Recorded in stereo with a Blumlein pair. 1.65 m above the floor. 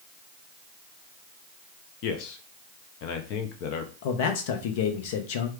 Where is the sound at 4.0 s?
50° left, 1.0 m.